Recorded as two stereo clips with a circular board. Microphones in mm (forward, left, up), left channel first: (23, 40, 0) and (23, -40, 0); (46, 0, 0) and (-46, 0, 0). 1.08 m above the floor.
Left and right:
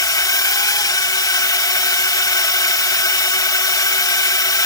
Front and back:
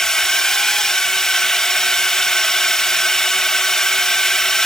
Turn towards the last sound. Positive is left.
turn(degrees=85)